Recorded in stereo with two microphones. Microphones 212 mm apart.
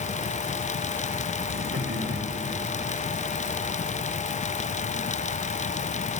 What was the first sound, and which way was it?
Laughter, 70° right (ahead or behind).